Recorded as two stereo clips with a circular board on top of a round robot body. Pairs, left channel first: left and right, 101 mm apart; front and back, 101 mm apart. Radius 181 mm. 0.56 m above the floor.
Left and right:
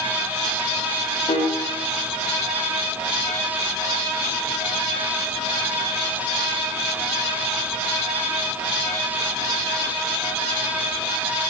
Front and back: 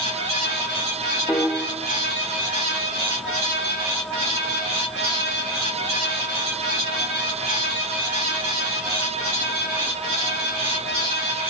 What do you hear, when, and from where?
1.3 s a piano: 75° left, 1.7 m